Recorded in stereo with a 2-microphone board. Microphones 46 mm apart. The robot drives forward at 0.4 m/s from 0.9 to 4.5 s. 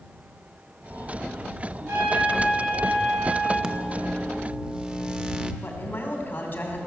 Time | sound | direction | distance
1.9 | a trumpet | 75° right (ahead or behind) | 6.5 m
3.6 | a microwave | 20° right (ahead or behind) | 0.6 m
5.6 | a man speaking | 45° left (ahead or behind) | 2.5 m